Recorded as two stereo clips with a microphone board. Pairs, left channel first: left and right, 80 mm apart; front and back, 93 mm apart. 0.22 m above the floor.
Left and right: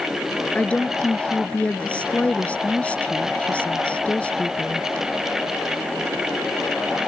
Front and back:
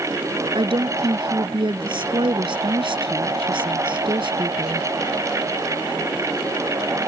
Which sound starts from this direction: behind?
A woman speaking, at 0.6 s.